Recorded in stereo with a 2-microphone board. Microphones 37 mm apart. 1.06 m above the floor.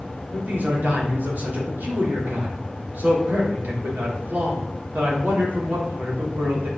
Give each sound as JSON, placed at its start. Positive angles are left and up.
{"t": 0.3, "sound": "a man speaking", "side_deg": -55, "distance_m": 3.5}